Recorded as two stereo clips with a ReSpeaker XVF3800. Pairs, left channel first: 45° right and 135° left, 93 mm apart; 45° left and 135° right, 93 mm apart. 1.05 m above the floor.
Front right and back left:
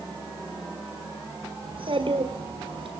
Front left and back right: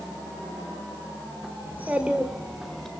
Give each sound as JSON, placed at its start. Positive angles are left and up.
{"t": 1.6, "sound": "a child speaking", "azimuth_deg": 155, "distance_m": 1.8}